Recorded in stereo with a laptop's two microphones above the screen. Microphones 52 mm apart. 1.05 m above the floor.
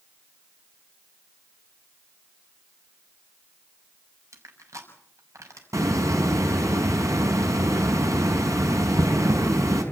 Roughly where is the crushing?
Right.